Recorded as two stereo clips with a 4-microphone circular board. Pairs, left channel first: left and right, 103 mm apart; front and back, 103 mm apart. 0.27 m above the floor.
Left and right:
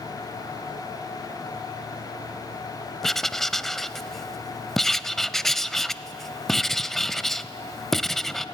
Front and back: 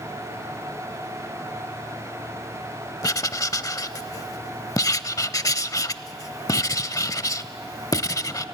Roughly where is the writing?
Ahead.